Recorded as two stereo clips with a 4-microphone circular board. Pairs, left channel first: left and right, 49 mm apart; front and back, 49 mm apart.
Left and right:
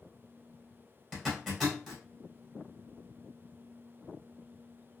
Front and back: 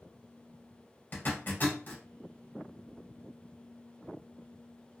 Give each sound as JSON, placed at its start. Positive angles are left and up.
{"t": 1.1, "sound": "a zipper", "azimuth_deg": -10, "distance_m": 2.0}